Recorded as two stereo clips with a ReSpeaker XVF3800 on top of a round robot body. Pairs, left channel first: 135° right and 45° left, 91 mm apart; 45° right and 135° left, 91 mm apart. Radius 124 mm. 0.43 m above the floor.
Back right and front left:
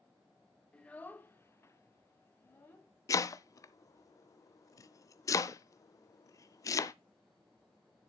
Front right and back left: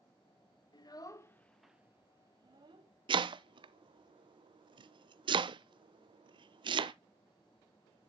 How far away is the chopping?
About 0.6 m.